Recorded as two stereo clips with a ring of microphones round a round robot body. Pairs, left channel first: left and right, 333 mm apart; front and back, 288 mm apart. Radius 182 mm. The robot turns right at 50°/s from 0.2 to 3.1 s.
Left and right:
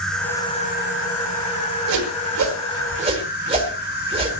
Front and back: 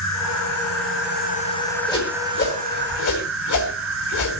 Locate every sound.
0.0 s an insect: straight ahead, 3 m; by 4.4 s 145° left, 3 m
1.9 s a whoosh: 80° right, 4 m; by 4.3 s 20° right, 4 m